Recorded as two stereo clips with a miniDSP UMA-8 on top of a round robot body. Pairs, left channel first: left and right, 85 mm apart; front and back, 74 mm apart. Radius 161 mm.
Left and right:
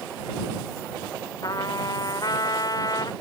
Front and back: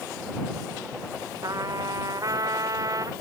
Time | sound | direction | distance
1.4 | a trumpet | 135° left | ?